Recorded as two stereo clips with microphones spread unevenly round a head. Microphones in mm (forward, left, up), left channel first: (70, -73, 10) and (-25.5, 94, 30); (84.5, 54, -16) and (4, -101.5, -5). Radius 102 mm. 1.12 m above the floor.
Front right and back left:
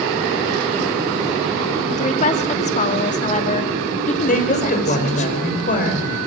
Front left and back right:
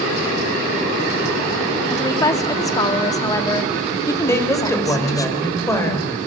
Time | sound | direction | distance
1.9 | a woman speaking | 10° right | 2.5 m
4.3 | a woman speaking | 15° right | 5 m